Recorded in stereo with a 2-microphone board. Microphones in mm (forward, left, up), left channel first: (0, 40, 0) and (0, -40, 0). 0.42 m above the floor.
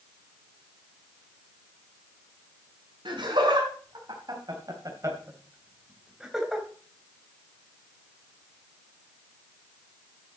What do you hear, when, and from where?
3.0 s laughter: 70° right (ahead or behind), 4 m; by 6.7 s centre (ahead or behind), 3 m